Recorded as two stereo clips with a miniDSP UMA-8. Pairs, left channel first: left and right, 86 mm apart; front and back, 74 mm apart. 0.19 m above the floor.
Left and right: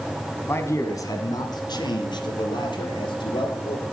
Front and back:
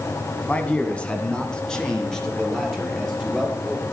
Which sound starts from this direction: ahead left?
A man speaking, at 0.5 s.